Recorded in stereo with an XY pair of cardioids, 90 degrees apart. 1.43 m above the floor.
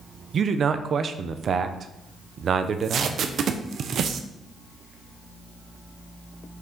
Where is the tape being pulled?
65° right, 0.9 m.